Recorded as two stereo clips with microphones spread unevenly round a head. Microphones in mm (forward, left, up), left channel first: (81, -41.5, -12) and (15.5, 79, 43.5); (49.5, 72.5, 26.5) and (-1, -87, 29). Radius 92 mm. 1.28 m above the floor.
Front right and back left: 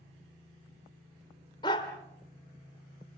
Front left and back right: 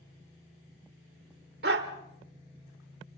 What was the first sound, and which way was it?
A dog barking, 140° right.